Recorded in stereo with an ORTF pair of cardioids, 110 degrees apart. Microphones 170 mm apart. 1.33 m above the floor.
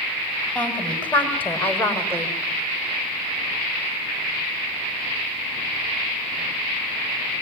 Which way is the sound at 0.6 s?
5° left.